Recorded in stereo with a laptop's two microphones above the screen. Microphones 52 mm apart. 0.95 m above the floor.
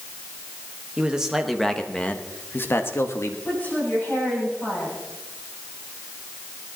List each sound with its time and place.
1.0 s a man speaking: 20° right (ahead or behind), 1.2 m; by 3.4 s 60° left (ahead or behind), 1.7 m
3.5 s a woman speaking: 30° left (ahead or behind), 7 m